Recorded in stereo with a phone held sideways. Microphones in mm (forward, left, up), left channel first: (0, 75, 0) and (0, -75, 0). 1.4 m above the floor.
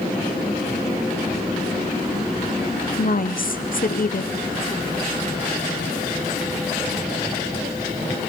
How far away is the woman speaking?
About 0.8 m.